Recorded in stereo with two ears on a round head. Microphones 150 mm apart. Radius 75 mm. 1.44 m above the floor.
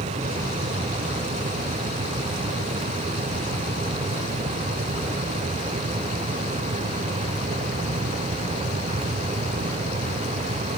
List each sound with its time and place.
Only background noise.